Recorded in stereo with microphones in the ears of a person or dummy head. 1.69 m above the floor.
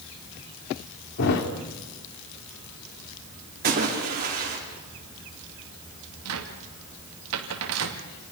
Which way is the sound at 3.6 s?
40° right (ahead or behind).